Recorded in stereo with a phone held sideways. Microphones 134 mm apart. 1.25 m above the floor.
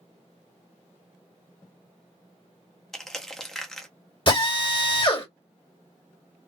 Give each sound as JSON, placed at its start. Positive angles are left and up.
{"t": 2.9, "sound": "crushing", "side_deg": 0, "distance_m": 0.7}
{"t": 4.3, "sound": "a drill", "side_deg": 40, "distance_m": 1.7}